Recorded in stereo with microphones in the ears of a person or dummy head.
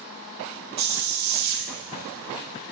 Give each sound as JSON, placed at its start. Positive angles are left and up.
{"t": 0.8, "sound": "a hiss", "side_deg": -50, "distance_m": 1.0}